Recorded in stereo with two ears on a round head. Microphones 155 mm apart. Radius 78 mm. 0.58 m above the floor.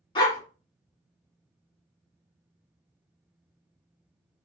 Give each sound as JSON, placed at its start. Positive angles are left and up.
{"t": 0.1, "sound": "a dog barking", "side_deg": 25, "distance_m": 1.5}